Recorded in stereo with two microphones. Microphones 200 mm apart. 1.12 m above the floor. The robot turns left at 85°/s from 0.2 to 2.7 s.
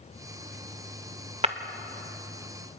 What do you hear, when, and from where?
1.4 s breaking glass: 30° right (ahead or behind), 1.1 m; by 1.6 s 40° right (ahead or behind), 1.1 m